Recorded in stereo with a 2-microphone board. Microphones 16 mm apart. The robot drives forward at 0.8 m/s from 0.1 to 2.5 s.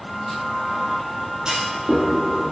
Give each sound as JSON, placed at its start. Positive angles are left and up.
{"t": 1.4, "sound": "a clunk", "side_deg": -65, "distance_m": 2.5}